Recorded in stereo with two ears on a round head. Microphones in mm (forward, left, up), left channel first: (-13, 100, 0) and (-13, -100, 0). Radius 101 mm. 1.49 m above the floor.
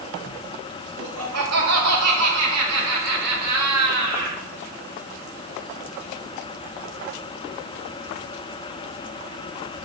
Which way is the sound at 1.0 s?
80° right.